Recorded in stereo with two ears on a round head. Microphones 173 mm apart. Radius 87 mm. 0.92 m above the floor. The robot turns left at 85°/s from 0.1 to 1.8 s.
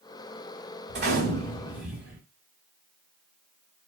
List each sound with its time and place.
0.9 s a gunshot: 95° right, 1.2 m; by 2.2 s 170° right, 1.2 m